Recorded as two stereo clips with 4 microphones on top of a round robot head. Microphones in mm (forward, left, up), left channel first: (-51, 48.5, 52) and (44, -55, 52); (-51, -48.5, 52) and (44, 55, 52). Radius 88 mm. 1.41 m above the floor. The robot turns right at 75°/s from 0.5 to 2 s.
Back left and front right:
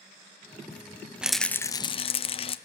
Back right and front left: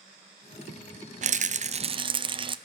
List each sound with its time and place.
1.2 s a rattle: 35° left, 0.5 m; by 2.6 s 95° left, 0.5 m